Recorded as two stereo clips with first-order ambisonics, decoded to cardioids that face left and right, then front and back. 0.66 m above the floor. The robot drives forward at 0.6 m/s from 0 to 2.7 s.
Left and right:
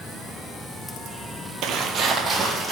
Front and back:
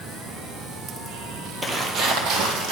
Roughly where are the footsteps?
Right.